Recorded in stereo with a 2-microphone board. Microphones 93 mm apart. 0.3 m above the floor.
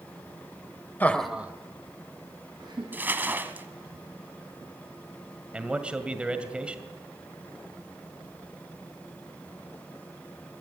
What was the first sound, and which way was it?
Laughter, 20° left (ahead or behind).